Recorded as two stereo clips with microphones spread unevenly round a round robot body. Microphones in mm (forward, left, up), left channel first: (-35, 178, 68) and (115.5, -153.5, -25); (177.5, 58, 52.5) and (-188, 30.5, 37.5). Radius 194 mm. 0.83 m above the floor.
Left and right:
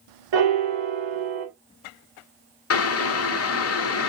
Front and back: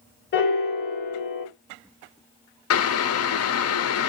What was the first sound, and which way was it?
A piano, 60° right.